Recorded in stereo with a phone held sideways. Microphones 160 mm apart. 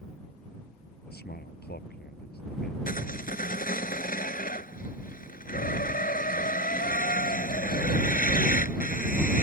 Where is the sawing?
60° left (ahead or behind).